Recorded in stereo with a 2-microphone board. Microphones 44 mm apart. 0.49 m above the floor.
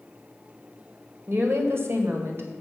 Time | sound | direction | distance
1.3 | a woman speaking | 55° right (ahead or behind) | 2 m